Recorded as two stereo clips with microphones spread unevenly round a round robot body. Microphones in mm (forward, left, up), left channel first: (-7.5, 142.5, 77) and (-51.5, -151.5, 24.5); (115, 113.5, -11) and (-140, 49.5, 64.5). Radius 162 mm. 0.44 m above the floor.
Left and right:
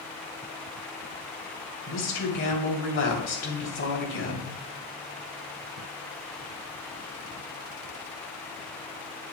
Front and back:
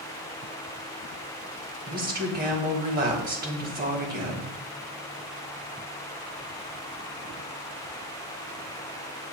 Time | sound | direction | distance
1.9 | a woman speaking | 135° left | 3 m